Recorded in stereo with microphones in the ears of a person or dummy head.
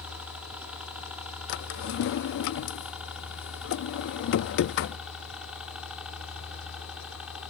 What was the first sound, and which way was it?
A helicopter, 5° right (ahead or behind).